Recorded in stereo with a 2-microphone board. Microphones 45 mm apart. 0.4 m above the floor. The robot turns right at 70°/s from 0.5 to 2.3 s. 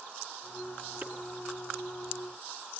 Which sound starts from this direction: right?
Chopping, at 1.0 s.